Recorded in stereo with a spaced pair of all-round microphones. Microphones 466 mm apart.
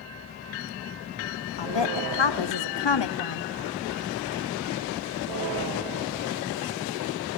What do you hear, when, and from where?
1.6 s a woman speaking: 65° left (ahead or behind), 0.6 m